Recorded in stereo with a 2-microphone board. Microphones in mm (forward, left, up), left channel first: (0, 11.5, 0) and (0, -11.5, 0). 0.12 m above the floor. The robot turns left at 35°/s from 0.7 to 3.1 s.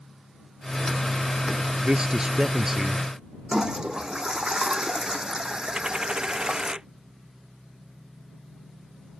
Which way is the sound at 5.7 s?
40° right (ahead or behind).